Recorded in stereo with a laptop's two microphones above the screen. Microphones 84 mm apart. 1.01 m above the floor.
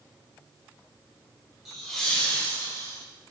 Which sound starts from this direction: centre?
Laughter, at 1.6 s.